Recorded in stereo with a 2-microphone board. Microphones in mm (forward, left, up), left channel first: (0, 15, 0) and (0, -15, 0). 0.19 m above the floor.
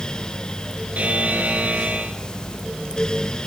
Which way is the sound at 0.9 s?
60° right (ahead or behind).